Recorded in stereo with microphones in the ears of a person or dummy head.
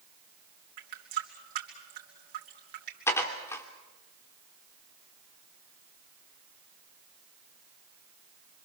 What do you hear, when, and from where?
0.8 s a running tap: 60° right (ahead or behind), 3 m
3.1 s dishes clattering: 15° left (ahead or behind), 2.5 m